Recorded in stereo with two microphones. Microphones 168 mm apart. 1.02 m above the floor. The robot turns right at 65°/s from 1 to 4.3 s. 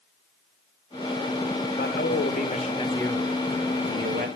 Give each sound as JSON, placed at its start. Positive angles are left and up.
{"t": 1.7, "sound": "a man speaking", "azimuth_deg": 80, "distance_m": 1.1}